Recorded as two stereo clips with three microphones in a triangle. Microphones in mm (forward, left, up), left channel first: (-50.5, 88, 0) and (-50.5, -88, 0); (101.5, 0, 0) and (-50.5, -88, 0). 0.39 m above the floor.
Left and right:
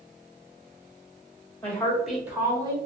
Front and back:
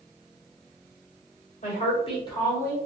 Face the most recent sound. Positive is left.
turn(degrees=-40)